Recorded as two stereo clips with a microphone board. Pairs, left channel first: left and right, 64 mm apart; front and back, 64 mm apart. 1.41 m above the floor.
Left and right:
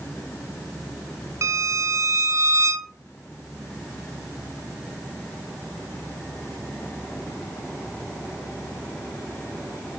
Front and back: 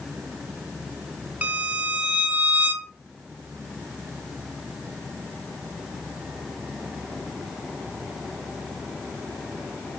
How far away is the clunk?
I don't hear a clunk.